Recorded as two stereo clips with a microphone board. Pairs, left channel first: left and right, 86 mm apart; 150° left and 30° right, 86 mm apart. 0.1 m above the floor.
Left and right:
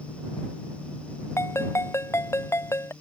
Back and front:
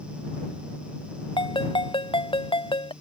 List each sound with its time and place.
1.4 s a ringtone: 150° left